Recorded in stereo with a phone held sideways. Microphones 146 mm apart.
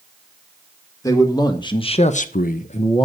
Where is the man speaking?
20° left (ahead or behind), 2.0 m; by 3.1 s 30° left (ahead or behind), 0.9 m.